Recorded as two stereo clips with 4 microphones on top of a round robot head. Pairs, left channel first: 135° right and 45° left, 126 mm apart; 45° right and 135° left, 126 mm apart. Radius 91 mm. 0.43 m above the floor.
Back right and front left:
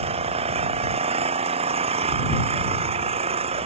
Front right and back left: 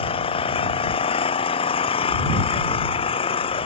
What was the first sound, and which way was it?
An engine running, straight ahead.